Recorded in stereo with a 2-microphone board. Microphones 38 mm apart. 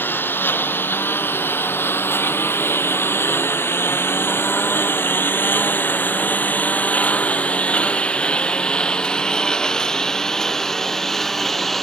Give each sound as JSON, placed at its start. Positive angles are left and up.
{"t": 0.0, "sound": "a lawn mower", "side_deg": 65}